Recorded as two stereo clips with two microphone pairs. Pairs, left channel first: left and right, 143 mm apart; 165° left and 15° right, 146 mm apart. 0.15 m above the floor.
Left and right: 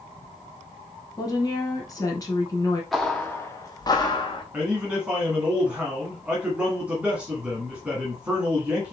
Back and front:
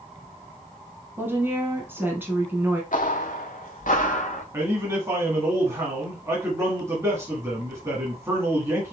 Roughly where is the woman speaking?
Ahead left.